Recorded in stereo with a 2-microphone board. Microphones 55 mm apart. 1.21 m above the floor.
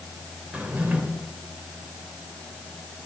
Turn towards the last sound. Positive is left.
turn(degrees=-20)  # may be behind; listen again after turning